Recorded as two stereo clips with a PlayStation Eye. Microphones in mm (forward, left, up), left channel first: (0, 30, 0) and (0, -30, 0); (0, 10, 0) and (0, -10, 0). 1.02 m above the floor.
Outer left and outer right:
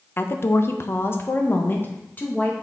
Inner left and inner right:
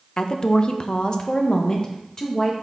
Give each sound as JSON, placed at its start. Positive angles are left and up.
{"t": 0.2, "sound": "a woman speaking", "side_deg": 35, "distance_m": 0.7}